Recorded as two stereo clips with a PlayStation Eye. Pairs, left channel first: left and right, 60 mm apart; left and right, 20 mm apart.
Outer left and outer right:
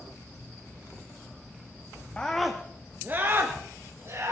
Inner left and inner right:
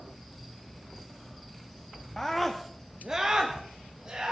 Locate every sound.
2.2 s a scream: 20° left (ahead or behind), 0.9 m; by 4.3 s 50° right (ahead or behind), 2.5 m